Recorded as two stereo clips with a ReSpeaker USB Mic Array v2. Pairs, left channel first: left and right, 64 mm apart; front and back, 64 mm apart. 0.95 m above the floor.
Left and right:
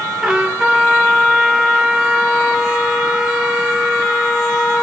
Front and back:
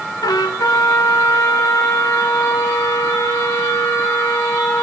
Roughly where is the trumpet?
Ahead.